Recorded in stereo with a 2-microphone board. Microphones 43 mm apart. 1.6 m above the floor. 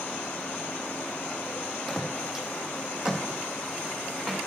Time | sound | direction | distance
1.9 | footsteps | centre (ahead or behind) | 2.5 m